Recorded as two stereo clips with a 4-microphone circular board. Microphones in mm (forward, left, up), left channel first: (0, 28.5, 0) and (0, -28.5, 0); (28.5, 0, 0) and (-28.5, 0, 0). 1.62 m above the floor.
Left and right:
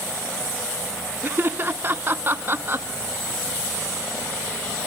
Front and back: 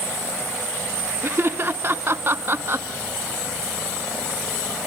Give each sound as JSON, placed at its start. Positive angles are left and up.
{"t": 1.2, "sound": "laughter", "azimuth_deg": -140, "distance_m": 1.1}